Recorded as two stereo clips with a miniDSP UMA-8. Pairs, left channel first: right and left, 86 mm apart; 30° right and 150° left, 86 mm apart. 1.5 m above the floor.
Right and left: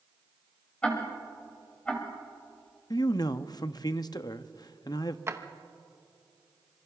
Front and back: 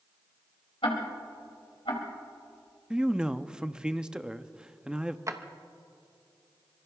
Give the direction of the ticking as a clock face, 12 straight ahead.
12 o'clock.